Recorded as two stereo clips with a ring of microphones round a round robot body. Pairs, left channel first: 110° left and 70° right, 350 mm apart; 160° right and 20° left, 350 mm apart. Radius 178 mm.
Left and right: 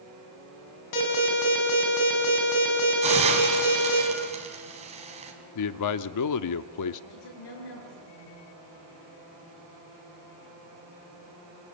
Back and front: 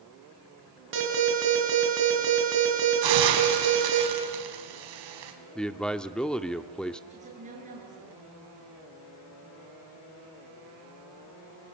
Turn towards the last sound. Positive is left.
turn(degrees=90)